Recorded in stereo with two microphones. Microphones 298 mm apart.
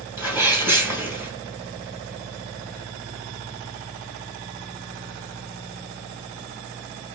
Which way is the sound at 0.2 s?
5° right (ahead or behind).